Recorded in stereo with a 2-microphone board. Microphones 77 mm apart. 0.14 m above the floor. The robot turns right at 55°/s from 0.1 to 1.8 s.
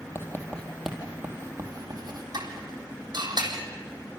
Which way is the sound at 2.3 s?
60° right (ahead or behind).